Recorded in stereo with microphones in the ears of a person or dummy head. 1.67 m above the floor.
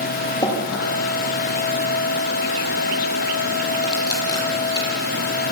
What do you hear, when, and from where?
0.4 s dripping: 20° left (ahead or behind), 8.5 m